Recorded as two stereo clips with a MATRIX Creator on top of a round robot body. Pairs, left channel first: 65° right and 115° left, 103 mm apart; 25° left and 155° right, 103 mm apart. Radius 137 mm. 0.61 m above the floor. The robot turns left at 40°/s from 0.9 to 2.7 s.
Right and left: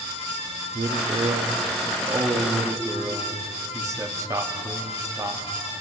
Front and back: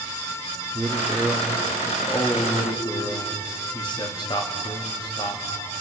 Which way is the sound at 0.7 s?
130° left.